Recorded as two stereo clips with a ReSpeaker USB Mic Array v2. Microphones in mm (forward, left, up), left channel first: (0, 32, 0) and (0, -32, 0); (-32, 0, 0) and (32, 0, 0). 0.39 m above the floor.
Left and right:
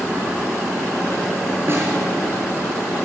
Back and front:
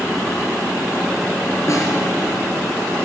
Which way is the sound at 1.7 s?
140° right.